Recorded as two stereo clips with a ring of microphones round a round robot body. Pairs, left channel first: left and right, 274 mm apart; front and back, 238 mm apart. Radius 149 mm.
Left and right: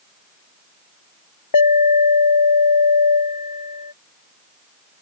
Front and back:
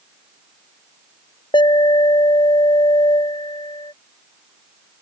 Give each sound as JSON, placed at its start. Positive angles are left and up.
{"t": 1.5, "sound": "an alarm", "azimuth_deg": 70}